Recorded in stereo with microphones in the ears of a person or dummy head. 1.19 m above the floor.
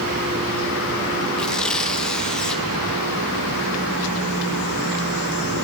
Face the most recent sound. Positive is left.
turn(degrees=0)  # may be behind; listen again after turning